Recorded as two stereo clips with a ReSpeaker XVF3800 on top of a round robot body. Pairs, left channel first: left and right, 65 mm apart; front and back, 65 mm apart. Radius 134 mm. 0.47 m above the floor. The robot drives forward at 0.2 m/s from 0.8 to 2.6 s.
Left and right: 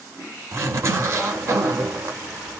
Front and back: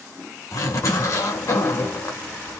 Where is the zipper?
45° right, 1.4 m; by 2.6 s 55° right, 1.2 m.